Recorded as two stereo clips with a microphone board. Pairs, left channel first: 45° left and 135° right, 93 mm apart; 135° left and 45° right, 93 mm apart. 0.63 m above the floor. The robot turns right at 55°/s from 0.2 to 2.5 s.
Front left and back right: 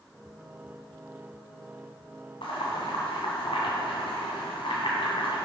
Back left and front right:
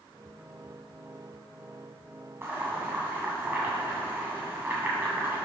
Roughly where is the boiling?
Ahead.